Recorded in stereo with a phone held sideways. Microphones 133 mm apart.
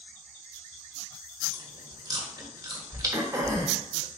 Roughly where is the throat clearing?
Right.